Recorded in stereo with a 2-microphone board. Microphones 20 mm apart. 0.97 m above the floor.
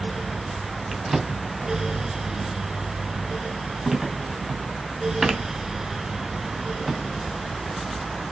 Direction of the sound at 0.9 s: 20° right (ahead or behind).